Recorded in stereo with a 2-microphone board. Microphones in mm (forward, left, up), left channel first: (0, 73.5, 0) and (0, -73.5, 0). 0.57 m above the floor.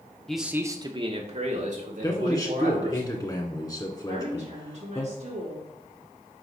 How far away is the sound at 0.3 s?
About 0.7 m.